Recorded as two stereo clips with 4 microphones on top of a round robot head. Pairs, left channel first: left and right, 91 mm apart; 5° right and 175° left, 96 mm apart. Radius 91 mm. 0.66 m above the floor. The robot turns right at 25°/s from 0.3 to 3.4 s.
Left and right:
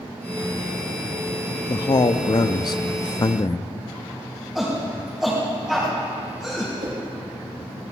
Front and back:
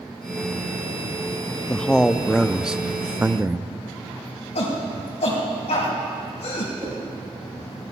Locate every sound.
1.7 s a man speaking: 70° left, 0.7 m; by 3.7 s 115° left, 0.7 m
4.5 s a shout: 5° right, 4 m
6.8 s a whoosh: 125° right, 3.5 m